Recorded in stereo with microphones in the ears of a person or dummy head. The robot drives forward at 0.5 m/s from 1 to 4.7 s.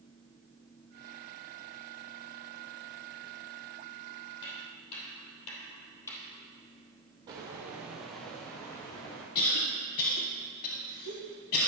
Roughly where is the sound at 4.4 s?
Left.